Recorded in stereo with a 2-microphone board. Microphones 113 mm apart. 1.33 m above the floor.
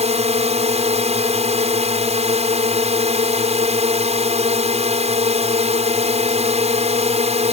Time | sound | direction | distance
0.0 | a drone | 70° right (ahead or behind) | ?